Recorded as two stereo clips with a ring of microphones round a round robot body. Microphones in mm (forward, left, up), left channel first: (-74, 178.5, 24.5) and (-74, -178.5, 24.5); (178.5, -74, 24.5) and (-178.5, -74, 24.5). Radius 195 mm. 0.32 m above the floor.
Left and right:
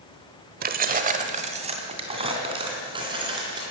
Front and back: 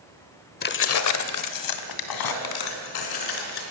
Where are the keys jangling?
45° right, 1.0 m; by 3.6 s 10° right, 4 m.